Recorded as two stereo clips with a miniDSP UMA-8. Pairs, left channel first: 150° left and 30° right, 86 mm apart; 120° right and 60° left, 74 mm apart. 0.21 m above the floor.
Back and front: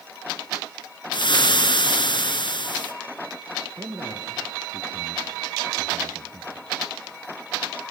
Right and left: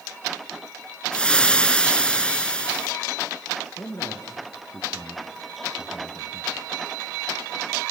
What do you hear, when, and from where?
1.1 s frying: 165° left, 1.2 m
3.8 s a man speaking: 75° right, 3.5 m